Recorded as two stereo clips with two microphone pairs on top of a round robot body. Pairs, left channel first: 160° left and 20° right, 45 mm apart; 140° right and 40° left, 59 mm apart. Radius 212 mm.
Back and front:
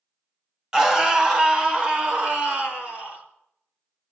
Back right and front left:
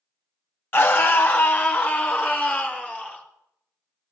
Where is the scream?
90° right, 1.4 m; by 3.2 s 75° right, 4 m.